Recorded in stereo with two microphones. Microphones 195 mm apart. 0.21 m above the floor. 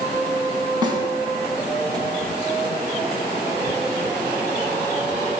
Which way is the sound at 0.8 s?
25° right (ahead or behind).